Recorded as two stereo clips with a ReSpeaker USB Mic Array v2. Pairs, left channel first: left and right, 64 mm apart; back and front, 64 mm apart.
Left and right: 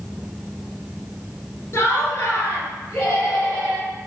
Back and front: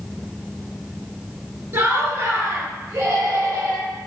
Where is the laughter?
45° left, 2 m; by 3.9 s 20° left, 5 m.